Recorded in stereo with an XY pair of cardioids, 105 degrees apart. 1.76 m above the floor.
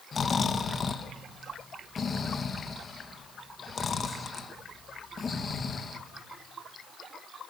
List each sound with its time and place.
0.1 s snoring: 40° left, 2 m